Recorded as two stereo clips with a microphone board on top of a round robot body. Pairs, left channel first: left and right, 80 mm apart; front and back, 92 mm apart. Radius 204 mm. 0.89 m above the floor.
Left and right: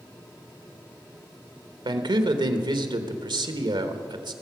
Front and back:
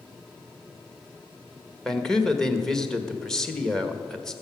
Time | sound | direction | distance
1.9 | a man speaking | 85° right | 1.5 m